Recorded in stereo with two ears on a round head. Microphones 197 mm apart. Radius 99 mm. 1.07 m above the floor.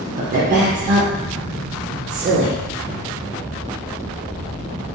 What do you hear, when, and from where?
0.2 s a woman speaking: 40° right (ahead or behind), 0.7 m